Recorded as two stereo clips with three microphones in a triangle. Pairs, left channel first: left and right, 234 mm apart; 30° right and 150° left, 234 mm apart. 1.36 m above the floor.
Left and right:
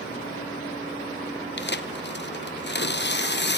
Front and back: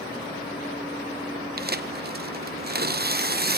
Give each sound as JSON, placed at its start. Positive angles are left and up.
{"t": 1.6, "sound": "tearing paper", "azimuth_deg": 115, "distance_m": 0.6}